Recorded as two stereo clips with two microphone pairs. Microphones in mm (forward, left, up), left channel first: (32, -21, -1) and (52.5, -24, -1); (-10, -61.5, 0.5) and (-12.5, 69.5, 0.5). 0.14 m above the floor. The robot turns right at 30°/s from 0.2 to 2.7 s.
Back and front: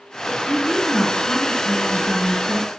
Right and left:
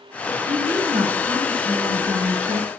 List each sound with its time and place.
0.5 s a woman speaking: 30° left, 1.5 m; by 2.7 s 95° left, 1.5 m